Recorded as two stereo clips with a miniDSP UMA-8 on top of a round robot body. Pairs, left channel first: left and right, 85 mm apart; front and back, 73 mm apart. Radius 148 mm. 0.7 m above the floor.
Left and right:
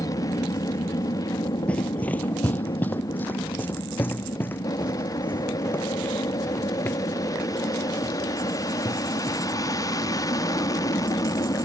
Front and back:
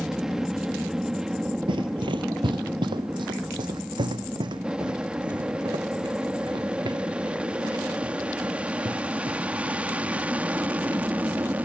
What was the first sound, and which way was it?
An aircraft, 100° left.